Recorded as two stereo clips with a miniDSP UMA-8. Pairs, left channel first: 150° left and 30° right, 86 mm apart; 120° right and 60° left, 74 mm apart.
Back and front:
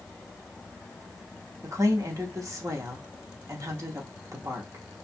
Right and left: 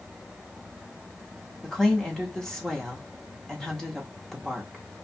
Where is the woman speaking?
40° right, 0.8 m.